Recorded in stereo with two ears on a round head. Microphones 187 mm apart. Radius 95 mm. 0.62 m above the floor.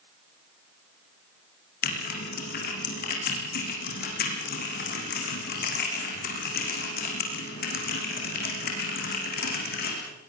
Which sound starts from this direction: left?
Typing on a keyboard, at 1.8 s.